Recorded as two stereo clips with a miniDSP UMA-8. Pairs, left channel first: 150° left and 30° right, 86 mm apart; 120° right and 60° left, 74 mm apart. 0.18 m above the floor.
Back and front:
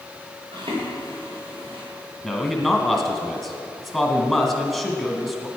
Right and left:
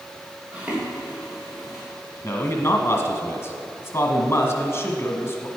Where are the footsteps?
10° right, 3.5 m; by 1.8 s 25° right, 5 m.